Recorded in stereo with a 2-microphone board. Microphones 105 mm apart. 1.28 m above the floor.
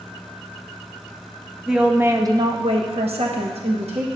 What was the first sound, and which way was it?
A woman speaking, 5° right (ahead or behind).